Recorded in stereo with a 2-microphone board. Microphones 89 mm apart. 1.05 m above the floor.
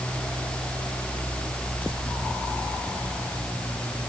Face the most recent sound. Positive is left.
No sound to turn to.